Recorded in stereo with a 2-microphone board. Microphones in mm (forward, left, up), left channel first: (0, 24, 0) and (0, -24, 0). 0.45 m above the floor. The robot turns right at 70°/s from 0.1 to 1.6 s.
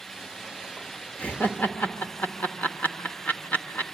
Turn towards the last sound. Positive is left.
turn(degrees=35)  # may be behind; listen again after turning